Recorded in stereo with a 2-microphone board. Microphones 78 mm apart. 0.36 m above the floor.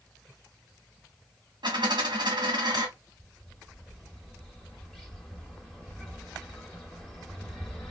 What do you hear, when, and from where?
1.6 s a dropped coin: 70° right (ahead or behind), 1.8 m
3.2 s a bird: 5° left (ahead or behind), 1.7 m